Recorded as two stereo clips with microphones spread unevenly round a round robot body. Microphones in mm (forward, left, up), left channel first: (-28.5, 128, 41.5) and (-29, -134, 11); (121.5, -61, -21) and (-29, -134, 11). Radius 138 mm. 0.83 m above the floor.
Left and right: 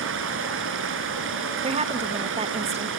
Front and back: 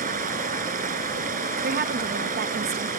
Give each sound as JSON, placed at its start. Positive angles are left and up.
{"t": 0.0, "sound": "running water", "azimuth_deg": -135, "distance_m": 1.9}
{"t": 1.6, "sound": "a woman speaking", "azimuth_deg": -145, "distance_m": 0.8}